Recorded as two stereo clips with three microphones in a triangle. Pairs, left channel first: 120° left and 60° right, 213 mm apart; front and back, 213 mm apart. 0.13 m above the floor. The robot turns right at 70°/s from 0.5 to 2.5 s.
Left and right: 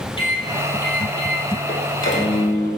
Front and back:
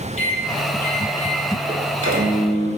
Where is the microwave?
55° left, 3.5 m; by 2.7 s 165° right, 3.5 m.